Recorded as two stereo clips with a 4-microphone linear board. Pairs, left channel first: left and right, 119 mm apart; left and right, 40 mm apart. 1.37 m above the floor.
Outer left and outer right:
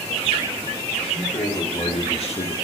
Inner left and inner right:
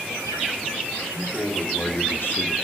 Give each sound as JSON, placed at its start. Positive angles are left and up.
{"t": 1.0, "sound": "a man speaking", "side_deg": 60, "distance_m": 3.5}